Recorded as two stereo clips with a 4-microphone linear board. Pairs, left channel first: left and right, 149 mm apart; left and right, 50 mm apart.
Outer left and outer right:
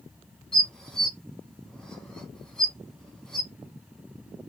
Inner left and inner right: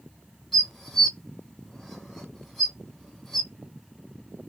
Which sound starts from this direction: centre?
Dishes clattering, at 0.5 s.